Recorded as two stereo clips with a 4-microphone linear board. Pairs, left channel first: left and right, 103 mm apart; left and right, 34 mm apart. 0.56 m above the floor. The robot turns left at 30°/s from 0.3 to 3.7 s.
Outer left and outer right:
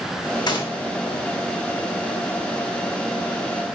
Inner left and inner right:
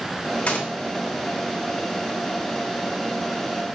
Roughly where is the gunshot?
Left.